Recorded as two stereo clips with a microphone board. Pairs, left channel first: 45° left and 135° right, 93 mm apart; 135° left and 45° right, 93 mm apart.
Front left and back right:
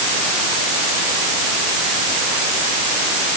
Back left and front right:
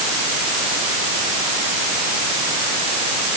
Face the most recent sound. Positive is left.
No sound to turn to.